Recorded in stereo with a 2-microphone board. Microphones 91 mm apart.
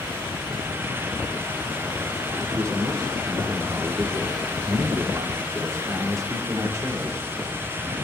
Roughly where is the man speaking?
Right.